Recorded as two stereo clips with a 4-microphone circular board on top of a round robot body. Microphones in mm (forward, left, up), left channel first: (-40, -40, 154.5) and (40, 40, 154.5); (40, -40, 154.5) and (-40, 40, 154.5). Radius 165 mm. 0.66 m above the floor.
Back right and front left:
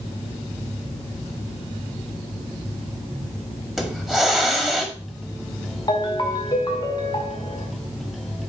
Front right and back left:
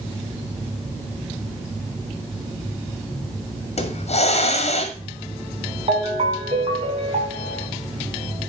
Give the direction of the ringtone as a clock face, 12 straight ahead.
6 o'clock.